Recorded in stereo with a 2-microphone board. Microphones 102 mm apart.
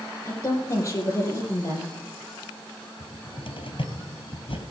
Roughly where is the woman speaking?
Left.